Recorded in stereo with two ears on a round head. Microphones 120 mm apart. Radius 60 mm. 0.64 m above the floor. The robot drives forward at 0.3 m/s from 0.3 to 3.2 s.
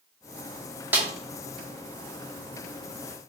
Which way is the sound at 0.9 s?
10° right (ahead or behind).